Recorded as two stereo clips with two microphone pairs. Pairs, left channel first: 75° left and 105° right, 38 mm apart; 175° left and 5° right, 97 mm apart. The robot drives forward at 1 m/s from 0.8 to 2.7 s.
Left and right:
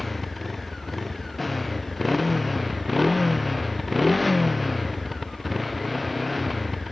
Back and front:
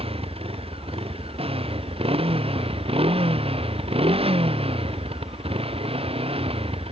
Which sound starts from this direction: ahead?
A motorcycle, at 0.0 s.